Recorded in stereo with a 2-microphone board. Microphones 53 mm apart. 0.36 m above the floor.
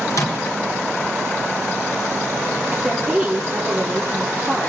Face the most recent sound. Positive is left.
turn(degrees=10)  # may be behind; listen again after turning